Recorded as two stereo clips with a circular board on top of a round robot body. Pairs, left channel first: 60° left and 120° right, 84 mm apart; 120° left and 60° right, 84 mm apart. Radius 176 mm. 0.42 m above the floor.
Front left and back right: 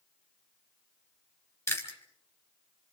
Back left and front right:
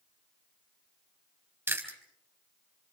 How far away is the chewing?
About 3.5 m.